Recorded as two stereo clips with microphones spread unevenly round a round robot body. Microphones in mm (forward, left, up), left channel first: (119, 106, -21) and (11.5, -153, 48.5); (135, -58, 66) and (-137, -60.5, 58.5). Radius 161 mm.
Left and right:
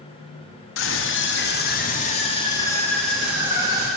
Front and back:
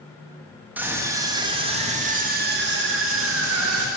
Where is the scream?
100° left, 1.7 m; by 3.9 s 165° left, 1.5 m.